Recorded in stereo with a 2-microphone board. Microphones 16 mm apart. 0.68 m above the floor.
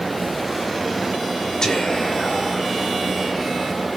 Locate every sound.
1.6 s whispering: 45° left (ahead or behind), 2.5 m